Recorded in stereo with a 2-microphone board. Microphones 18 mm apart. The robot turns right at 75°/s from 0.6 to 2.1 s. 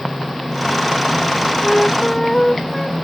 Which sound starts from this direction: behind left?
A flute, at 1.6 s.